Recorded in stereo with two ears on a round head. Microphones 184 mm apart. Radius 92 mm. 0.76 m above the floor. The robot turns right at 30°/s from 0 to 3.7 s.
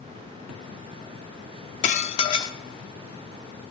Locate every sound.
1.8 s dishes clattering: 35° left (ahead or behind), 0.7 m; by 2.6 s 15° left (ahead or behind), 0.7 m